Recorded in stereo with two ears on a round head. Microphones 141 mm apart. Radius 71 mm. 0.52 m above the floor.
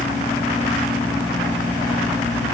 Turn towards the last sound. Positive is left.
No sound to turn to.